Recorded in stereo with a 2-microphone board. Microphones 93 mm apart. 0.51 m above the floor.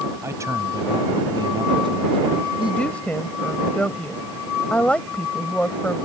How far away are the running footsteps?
I don't hear running footsteps.